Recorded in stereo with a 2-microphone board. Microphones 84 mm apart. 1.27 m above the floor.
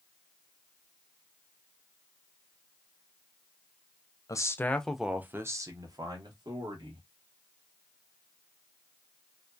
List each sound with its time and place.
4.3 s a man speaking: 40° left (ahead or behind), 0.5 m; by 7.1 s 65° right (ahead or behind), 1.4 m